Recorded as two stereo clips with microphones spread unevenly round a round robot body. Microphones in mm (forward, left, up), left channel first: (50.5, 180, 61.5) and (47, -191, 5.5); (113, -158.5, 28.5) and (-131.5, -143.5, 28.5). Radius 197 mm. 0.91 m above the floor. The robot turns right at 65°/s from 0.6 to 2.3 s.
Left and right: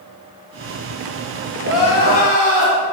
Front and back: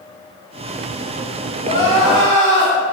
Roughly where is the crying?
Behind left.